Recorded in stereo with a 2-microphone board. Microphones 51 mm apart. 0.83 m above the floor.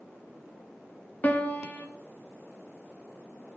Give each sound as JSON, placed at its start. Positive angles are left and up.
{"t": 1.2, "sound": "a piano", "side_deg": 30, "distance_m": 0.9}